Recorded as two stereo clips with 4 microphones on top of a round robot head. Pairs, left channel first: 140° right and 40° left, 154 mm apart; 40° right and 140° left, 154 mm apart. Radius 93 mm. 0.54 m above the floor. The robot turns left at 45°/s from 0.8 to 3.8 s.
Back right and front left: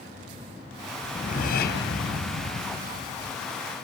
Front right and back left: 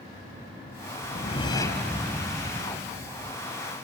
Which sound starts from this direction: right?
A whoosh, at 1.0 s.